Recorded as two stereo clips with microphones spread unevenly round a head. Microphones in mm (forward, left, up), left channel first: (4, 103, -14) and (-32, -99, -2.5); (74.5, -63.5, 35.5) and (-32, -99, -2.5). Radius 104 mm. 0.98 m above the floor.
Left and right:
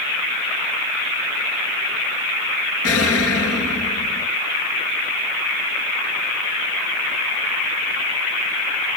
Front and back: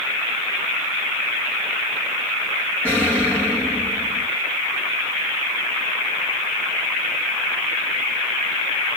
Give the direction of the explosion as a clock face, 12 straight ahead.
9 o'clock.